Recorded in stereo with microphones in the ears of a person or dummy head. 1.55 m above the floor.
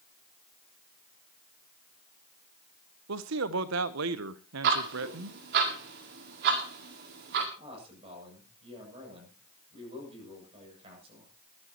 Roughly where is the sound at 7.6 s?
Right.